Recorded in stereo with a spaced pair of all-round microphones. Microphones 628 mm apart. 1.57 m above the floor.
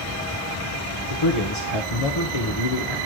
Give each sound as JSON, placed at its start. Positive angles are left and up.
{"t": 1.1, "sound": "a man speaking", "side_deg": 50, "distance_m": 1.5}